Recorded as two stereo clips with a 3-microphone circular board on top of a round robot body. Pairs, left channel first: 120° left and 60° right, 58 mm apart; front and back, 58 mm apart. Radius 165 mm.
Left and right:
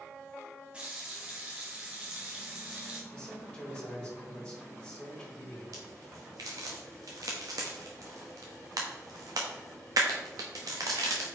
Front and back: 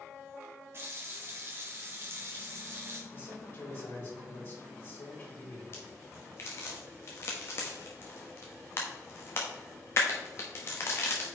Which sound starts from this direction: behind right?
A running tap, at 0.7 s.